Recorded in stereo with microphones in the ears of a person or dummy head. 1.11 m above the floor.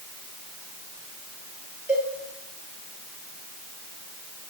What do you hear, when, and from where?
1.9 s a cowbell: 10° right (ahead or behind), 9.5 m